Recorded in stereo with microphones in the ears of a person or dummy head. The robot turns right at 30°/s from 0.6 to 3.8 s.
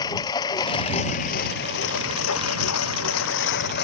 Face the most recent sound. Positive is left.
turn(degrees=55)  # may be behind; listen again after turning